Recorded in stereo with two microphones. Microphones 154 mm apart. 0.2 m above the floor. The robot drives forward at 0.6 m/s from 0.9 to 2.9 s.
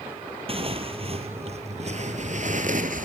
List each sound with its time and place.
0.5 s tearing paper: 40° right (ahead or behind), 2.5 m; by 3.1 s 60° right (ahead or behind), 2.0 m